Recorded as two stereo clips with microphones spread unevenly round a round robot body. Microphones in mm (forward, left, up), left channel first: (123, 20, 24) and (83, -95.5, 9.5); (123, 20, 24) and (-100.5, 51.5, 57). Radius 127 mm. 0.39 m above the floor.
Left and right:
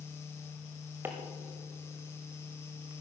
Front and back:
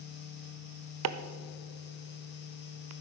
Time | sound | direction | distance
1.0 | chopping | 175° left | 0.7 m